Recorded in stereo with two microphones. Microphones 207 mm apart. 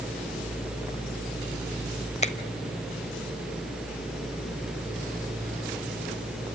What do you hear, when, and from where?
2.2 s a finger snap: 30° left (ahead or behind), 1.0 m